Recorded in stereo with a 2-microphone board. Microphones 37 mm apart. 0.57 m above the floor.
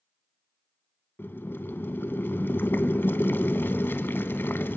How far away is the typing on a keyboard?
No typing on a keyboard in this recording.